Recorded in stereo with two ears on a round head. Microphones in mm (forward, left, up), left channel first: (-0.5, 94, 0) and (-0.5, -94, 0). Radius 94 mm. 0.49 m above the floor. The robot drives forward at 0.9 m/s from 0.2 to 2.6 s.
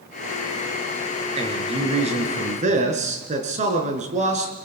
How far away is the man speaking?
About 6 m.